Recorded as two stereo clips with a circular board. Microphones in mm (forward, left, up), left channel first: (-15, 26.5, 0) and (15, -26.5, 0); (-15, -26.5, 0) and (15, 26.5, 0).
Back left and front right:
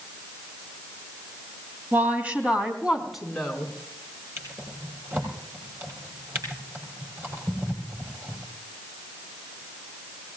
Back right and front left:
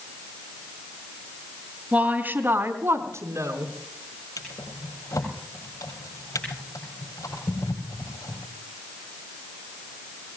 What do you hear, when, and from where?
1.9 s a woman speaking: 5° right, 2.5 m; by 3.7 s 35° left, 4 m
4.4 s a drawer: 110° right, 6.5 m